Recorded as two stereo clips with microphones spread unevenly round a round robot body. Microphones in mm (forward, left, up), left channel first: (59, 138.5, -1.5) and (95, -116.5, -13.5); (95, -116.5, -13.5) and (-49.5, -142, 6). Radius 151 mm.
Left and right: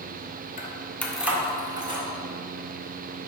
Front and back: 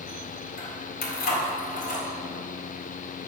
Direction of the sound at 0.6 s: 40° left.